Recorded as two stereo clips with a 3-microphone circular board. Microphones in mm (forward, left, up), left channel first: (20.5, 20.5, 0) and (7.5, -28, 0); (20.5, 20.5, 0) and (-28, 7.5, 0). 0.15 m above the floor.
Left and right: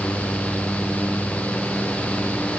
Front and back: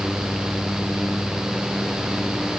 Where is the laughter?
I don't hear laughter.